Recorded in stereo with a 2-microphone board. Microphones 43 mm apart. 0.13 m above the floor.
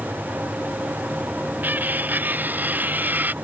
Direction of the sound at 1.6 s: 45° right (ahead or behind).